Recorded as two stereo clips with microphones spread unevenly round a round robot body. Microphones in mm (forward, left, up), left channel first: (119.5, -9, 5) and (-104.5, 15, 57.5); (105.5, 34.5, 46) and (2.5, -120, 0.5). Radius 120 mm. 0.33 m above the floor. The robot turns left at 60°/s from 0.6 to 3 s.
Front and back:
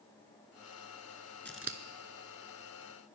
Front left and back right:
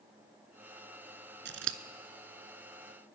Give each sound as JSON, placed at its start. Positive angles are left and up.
{"t": 1.4, "sound": "scissors", "azimuth_deg": -95, "distance_m": 0.7}